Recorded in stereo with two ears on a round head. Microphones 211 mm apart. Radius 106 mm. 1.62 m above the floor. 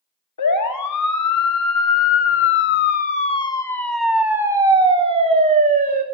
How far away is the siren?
About 3.5 m.